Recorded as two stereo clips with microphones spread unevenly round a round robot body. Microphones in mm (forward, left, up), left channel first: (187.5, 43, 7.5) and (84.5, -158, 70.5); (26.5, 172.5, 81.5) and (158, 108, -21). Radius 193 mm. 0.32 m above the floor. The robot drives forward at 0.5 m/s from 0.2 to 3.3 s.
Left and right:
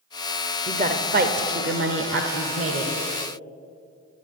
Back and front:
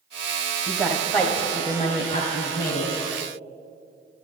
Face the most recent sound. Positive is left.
turn(degrees=-145)